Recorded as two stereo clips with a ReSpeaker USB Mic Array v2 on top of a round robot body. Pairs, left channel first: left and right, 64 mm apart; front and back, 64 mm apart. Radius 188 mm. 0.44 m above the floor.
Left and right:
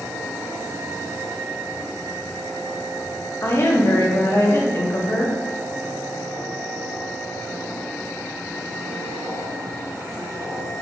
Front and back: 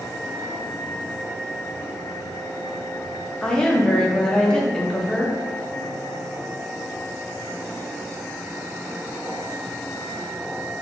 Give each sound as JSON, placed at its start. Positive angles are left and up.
{"t": 3.4, "sound": "a woman speaking", "azimuth_deg": 75, "distance_m": 1.1}